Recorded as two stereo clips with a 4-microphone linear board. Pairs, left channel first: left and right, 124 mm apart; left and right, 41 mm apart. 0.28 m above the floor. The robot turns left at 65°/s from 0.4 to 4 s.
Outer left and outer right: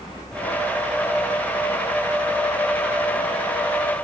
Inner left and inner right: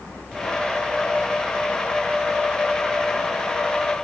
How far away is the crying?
I don't hear crying.